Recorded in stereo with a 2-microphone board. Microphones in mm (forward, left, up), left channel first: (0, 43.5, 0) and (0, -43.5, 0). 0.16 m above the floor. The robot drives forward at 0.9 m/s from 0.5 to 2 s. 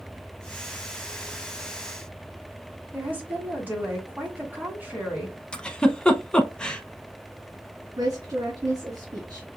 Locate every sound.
2.9 s a woman speaking: 20° right (ahead or behind), 1.7 m
5.5 s a giggle: 10° left (ahead or behind), 0.6 m
8.0 s a woman speaking: 40° right (ahead or behind), 2.5 m